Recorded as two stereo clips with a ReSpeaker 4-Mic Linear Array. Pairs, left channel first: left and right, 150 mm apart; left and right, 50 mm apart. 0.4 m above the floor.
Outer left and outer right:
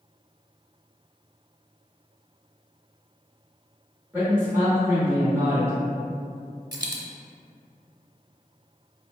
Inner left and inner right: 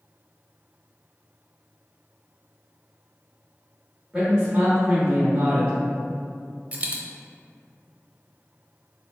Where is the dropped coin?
25° right (ahead or behind), 0.7 m.